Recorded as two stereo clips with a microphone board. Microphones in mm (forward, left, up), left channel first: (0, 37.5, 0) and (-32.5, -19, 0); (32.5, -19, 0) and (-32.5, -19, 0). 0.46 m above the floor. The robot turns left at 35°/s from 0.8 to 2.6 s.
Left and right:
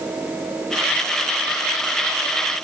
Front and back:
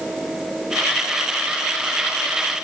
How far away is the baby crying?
I don't hear a baby crying.